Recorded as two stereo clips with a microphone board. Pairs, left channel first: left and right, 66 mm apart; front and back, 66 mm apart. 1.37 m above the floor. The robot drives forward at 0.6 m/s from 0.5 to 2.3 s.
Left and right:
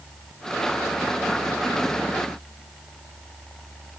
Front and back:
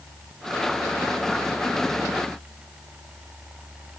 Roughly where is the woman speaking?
I don't hear a woman speaking.